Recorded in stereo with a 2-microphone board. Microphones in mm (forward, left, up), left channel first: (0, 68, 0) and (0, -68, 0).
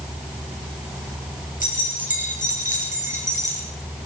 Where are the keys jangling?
70° left (ahead or behind), 5 m; by 3.6 s 65° left (ahead or behind), 4 m.